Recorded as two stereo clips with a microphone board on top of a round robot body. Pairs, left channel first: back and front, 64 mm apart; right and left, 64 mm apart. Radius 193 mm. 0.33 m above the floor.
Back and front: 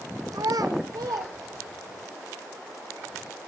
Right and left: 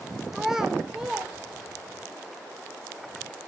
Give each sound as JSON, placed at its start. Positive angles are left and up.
{"t": 0.3, "sound": "a child speaking", "azimuth_deg": 5, "distance_m": 1.3}